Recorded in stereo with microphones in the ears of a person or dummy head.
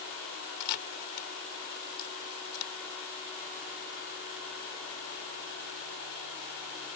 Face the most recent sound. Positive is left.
turn(degrees=65)  # may be behind; listen again after turning